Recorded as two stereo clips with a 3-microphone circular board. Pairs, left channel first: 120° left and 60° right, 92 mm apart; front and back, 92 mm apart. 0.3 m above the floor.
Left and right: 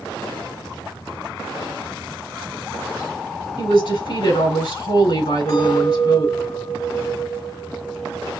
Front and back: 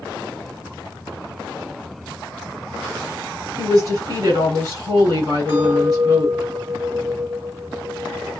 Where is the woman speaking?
130° left, 3.5 m.